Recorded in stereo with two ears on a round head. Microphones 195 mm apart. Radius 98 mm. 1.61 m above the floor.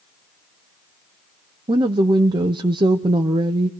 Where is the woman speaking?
20° right (ahead or behind), 0.7 m.